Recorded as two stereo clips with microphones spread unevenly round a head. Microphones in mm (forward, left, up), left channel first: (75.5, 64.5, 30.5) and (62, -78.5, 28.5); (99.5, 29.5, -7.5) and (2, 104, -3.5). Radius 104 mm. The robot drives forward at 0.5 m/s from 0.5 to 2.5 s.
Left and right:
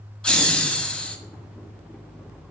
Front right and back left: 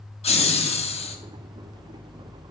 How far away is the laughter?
About 1.4 m.